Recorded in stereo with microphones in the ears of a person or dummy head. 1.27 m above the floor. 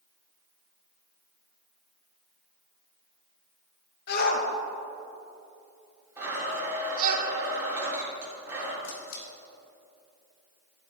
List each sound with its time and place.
4.1 s a shout: 55° left (ahead or behind), 1.6 m; by 7.2 s 50° right (ahead or behind), 1.3 m
6.2 s a blender: 10° right (ahead or behind), 3.5 m
8.8 s a camera shutter: 75° left (ahead or behind), 3 m